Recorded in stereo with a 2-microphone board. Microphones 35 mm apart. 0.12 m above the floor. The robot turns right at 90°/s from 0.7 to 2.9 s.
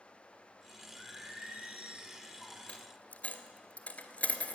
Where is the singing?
135° right, 3 m; by 2.6 s 15° left, 3 m.